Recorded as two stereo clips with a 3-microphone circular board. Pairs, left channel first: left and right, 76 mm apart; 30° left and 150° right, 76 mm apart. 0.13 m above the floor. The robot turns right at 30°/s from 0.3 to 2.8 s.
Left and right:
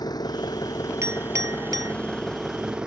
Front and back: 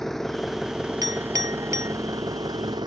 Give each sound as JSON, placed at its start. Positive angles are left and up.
{"t": 0.0, "sound": "an engine running", "azimuth_deg": 115}
{"t": 1.0, "sound": "a clink", "azimuth_deg": -135}